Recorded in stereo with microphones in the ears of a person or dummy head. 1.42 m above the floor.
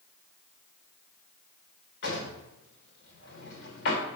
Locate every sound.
2.0 s a drawer: 55° left (ahead or behind), 2 m